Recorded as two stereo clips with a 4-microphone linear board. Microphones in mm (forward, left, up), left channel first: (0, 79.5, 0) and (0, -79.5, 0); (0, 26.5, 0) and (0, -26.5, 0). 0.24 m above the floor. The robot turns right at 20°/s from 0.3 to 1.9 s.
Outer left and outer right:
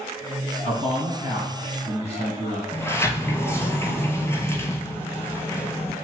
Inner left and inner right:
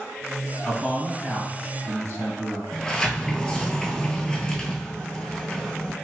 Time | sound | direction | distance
0.6 | a man speaking | 40° left (ahead or behind) | 2.0 m
2.7 | a sliding door | 20° left (ahead or behind) | 0.8 m